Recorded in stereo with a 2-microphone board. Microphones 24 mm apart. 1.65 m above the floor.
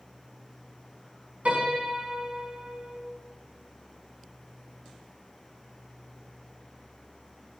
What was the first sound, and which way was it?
A piano, 65° right (ahead or behind).